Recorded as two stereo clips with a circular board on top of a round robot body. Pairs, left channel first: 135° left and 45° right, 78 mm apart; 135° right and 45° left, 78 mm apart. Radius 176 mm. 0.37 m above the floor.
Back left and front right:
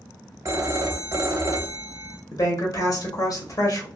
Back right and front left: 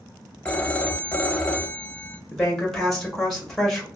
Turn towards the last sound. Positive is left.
turn(degrees=140)